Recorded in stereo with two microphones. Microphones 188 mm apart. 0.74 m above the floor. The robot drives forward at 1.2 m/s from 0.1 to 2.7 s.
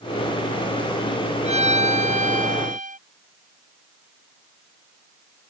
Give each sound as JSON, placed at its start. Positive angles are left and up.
{"t": 1.4, "sound": "a violin", "side_deg": -35}